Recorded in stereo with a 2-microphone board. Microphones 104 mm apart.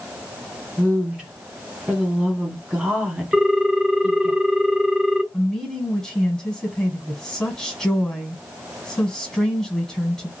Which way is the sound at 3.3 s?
5° right (ahead or behind).